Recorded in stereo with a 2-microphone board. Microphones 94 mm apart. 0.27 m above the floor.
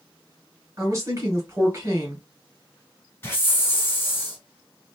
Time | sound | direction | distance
0.8 | a woman speaking | 30° right (ahead or behind) | 1.6 m
3.2 | a hiss | 25° left (ahead or behind) | 1.1 m